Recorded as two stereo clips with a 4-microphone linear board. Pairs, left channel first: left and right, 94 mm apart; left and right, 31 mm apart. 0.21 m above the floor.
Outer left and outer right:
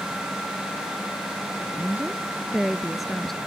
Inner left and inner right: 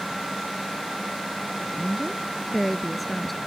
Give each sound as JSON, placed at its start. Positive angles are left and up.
{"t": 1.6, "sound": "a woman speaking", "side_deg": -20}